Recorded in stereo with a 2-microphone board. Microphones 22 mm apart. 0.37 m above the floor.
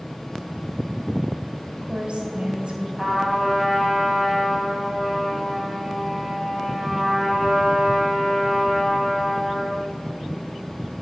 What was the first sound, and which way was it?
A woman speaking, 60° right (ahead or behind).